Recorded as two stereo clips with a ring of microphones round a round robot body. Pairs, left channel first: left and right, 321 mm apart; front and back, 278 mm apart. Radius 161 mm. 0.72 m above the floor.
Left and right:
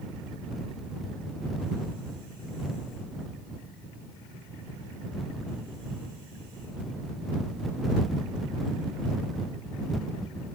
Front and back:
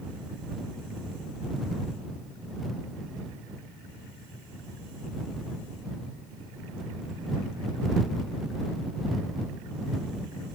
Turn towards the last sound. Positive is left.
No sound to turn to.